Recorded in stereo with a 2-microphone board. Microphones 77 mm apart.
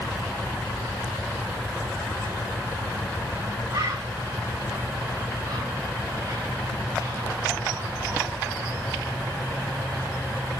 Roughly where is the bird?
Right.